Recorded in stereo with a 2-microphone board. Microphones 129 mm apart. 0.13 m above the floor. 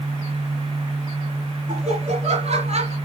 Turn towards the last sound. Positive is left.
turn(degrees=-55)  # may be behind; listen again after turning